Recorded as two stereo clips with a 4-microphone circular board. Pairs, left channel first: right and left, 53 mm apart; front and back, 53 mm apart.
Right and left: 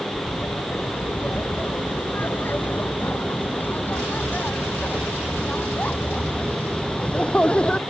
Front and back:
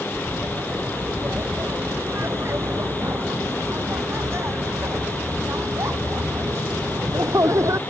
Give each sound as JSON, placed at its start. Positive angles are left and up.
{"t": 0.1, "sound": "laughter", "azimuth_deg": -140}